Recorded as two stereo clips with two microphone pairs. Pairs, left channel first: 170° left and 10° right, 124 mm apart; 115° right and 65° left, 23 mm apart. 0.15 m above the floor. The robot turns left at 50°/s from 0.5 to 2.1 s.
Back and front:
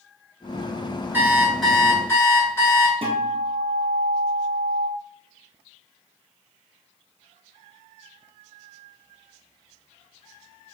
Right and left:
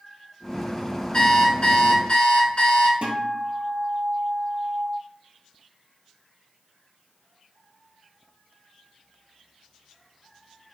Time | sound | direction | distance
1.1 | an alarm clock | 80° right | 1.0 m
3.0 | a guitar | 35° left | 1.1 m